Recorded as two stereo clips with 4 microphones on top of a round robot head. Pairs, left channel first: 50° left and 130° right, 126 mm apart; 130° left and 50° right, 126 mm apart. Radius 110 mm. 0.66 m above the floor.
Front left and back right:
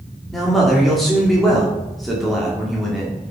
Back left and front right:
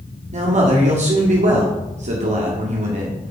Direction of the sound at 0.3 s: 40° right.